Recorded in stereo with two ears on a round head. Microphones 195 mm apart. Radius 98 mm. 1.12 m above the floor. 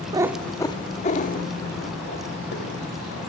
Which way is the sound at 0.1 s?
20° right (ahead or behind).